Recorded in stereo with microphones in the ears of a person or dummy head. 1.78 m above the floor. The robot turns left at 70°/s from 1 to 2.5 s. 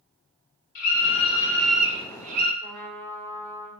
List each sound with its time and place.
0.8 s a scream: 45° left, 2 m; by 2.5 s 60° right, 2 m
2.6 s a trumpet: 15° left (ahead or behind), 0.9 m